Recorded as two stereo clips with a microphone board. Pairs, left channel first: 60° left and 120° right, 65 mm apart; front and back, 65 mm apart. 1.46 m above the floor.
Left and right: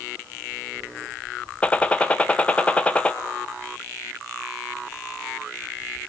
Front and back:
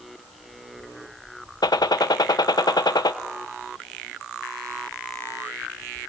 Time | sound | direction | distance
1.6 | a gunshot | 10° right | 1.0 m